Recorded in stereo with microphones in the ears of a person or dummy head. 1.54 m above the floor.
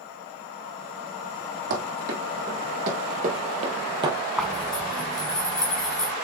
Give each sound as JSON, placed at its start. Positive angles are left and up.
{"t": 1.7, "sound": "running footsteps", "side_deg": -55, "distance_m": 3.0}
{"t": 4.4, "sound": "a zipper", "side_deg": 5, "distance_m": 1.5}